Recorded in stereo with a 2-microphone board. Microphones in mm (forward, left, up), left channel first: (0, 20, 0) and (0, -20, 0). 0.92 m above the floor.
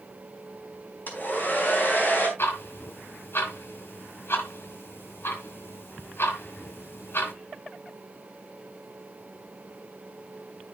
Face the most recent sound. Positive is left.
turn(degrees=75)  # may be behind; listen again after turning